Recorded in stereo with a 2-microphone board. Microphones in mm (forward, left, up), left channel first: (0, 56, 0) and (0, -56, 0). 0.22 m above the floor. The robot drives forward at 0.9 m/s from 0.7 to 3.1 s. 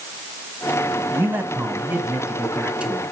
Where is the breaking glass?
No breaking glass in this recording.